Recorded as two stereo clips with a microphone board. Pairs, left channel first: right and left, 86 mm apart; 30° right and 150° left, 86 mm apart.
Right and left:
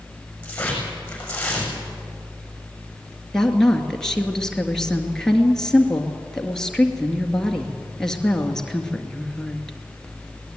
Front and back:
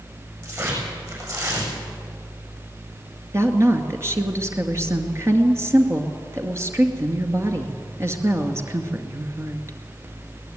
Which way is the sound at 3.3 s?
170° right.